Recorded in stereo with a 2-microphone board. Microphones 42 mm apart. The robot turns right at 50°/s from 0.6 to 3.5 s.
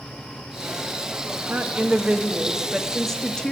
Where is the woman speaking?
70° right, 1.0 m; by 3.5 s 30° left, 1.0 m.